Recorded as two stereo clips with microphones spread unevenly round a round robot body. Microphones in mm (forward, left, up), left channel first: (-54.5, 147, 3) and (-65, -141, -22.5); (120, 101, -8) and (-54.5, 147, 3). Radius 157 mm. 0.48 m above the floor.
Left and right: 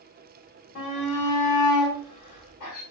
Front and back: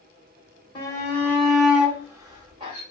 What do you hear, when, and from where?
0.8 s a shout: 45° left, 1.4 m; by 2.8 s 105° left, 1.8 m